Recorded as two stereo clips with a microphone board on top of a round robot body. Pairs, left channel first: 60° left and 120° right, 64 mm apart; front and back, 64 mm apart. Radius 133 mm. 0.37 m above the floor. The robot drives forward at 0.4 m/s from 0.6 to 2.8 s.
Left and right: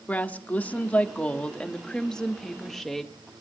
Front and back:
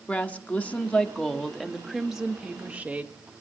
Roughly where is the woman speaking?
Ahead left.